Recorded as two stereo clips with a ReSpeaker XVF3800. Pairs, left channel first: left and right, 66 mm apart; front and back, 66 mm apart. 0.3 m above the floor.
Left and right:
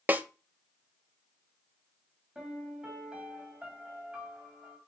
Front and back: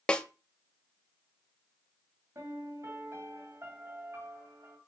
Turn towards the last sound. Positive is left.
turn(degrees=-160)